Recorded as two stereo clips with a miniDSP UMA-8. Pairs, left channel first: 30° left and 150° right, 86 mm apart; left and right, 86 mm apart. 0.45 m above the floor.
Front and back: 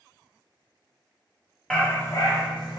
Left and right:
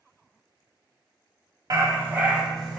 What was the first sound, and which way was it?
A dog barking, 50° right.